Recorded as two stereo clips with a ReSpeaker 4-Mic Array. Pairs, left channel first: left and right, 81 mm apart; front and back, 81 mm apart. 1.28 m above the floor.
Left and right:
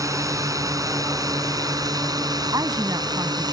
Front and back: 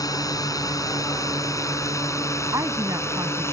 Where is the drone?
45° right; by 3.5 s 60° right.